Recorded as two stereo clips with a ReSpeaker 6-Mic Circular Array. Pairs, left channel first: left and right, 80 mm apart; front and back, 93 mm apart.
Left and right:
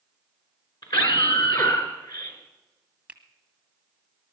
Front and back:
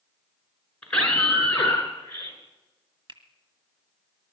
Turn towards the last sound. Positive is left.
turn(degrees=-160)